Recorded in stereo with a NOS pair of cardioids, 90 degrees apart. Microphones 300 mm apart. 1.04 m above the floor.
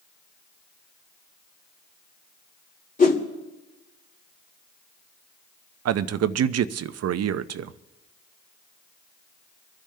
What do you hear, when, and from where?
3.0 s a whoosh: 25° left, 2.5 m
5.8 s a man speaking: 55° right, 0.7 m